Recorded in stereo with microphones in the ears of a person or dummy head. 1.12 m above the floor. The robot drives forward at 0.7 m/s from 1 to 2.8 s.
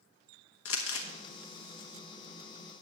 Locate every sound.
0.7 s crumpling: 70° left (ahead or behind), 1.2 m